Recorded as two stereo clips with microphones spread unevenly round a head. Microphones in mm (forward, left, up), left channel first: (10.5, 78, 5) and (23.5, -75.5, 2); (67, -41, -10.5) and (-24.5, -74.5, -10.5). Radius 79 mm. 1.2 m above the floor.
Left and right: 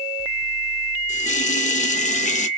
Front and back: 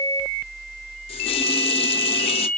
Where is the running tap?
55° left, 0.6 m.